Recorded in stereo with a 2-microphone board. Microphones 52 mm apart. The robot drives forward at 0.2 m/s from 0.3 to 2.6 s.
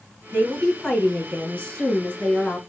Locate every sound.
0.3 s a woman speaking: 25° left (ahead or behind), 2.5 m; by 2.6 s 20° left (ahead or behind), 2.5 m